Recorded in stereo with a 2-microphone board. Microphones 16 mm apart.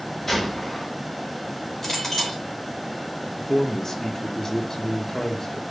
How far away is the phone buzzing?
I don't hear a phone buzzing.